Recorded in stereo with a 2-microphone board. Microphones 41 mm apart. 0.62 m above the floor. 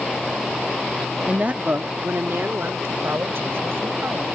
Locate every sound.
1.3 s a woman speaking: 25° right (ahead or behind); by 4.3 s 75° right (ahead or behind)